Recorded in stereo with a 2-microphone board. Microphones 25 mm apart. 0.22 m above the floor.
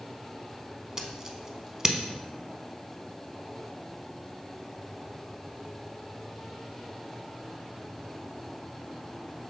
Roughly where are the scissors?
Right.